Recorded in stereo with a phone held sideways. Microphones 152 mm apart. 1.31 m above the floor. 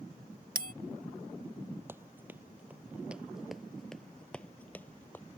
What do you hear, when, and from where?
0.6 s a bell: 75° right (ahead or behind)
1.9 s running footsteps: 15° right (ahead or behind); by 5.2 s 10° left (ahead or behind)